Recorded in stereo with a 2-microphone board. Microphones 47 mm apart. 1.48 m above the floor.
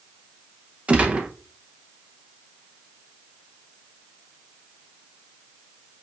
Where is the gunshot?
25° right (ahead or behind), 0.7 m.